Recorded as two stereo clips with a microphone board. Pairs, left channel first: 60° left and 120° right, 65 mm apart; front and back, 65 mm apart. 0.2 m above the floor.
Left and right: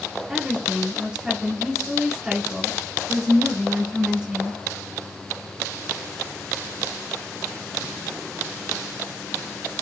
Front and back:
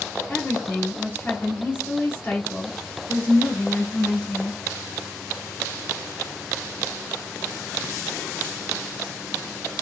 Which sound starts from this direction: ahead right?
A woman speaking, at 0.3 s.